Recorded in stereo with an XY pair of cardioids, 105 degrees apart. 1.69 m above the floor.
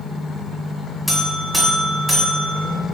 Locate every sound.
1.1 s a buzzer: 10° left, 0.9 m